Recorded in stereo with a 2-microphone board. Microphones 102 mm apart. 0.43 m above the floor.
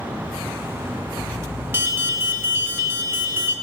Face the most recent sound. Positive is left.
turn(degrees=-25)  # may be behind; listen again after turning